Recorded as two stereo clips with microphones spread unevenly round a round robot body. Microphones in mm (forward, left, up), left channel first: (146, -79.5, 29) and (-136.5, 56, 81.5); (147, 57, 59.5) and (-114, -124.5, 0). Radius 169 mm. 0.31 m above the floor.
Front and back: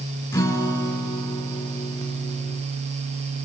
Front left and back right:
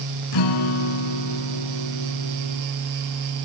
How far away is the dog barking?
I don't hear a dog barking.